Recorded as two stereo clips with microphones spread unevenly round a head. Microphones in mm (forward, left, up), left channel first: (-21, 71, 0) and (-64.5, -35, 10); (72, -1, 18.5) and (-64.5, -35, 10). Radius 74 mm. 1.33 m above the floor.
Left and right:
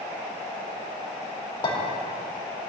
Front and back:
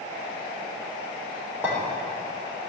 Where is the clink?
115° left, 4 m.